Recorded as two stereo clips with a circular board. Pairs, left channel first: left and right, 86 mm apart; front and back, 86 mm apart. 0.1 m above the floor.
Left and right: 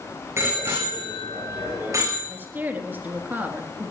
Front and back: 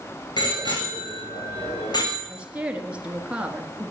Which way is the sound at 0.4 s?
30° right.